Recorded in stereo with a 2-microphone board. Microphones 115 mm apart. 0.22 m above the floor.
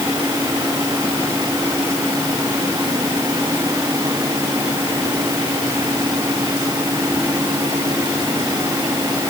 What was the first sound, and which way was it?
Only background noise.